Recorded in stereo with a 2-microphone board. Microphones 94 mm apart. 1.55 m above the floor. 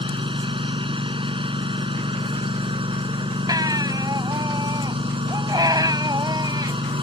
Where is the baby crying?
45° right (ahead or behind).